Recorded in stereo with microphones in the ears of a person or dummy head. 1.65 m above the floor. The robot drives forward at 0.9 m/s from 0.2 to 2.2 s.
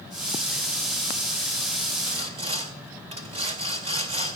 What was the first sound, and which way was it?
Sawing, 35° right (ahead or behind).